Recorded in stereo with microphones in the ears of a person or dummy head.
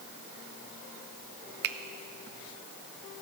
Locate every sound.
1.6 s a finger snap: 60° right (ahead or behind), 0.6 m